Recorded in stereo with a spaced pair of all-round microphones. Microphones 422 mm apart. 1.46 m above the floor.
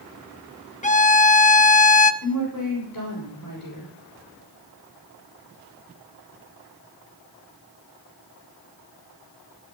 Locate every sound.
0.8 s a violin: 20° left (ahead or behind), 0.9 m
2.2 s a woman speaking: 45° left (ahead or behind), 6 m